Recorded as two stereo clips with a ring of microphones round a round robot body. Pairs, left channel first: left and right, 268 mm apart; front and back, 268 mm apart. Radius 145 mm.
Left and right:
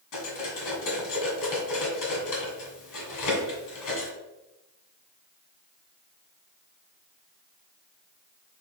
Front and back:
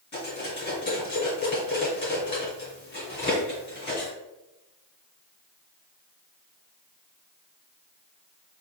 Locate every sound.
0.1 s cutlery clinking: 70° left, 1.6 m